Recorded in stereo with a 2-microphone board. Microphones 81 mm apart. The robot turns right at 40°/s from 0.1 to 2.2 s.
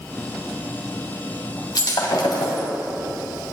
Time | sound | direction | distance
1.8 | breaking glass | 65° left (ahead or behind) | 2.5 m